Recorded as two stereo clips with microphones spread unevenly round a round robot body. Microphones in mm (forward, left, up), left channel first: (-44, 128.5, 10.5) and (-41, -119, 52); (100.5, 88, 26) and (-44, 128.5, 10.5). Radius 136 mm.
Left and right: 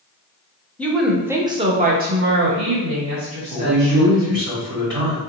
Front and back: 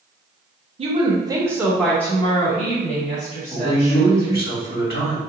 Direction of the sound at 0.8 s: 160° left.